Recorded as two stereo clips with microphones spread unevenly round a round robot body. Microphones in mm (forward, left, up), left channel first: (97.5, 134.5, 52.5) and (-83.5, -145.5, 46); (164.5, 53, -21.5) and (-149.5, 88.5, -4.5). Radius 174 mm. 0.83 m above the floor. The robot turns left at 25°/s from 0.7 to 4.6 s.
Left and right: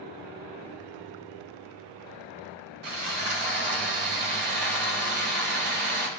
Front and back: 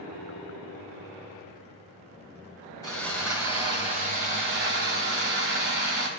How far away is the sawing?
About 3 m.